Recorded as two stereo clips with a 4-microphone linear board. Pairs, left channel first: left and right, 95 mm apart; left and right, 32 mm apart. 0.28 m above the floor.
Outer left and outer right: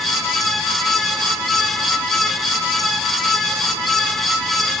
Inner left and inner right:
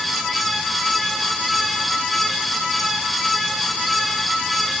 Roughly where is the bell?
No bell in this recording.